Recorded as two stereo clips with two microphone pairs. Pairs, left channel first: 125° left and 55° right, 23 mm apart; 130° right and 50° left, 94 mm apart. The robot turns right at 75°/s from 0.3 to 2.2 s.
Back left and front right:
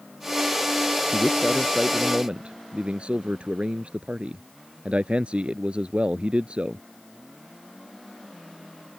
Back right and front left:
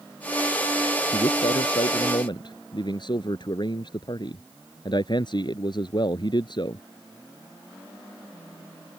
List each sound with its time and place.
1.1 s a man speaking: 175° right; by 6.8 s 95° right